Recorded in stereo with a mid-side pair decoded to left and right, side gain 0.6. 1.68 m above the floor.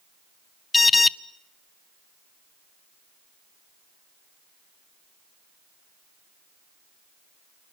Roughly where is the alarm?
Ahead.